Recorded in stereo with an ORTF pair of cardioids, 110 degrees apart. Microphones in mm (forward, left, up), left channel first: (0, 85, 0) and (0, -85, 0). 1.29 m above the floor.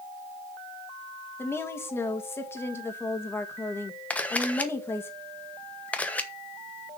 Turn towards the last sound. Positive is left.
turn(degrees=10)